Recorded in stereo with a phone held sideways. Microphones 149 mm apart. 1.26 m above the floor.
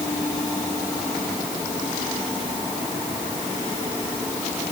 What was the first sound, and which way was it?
Only background noise.